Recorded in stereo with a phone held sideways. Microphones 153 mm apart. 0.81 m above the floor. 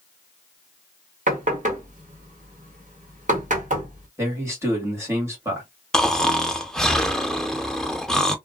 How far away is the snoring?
About 0.6 m.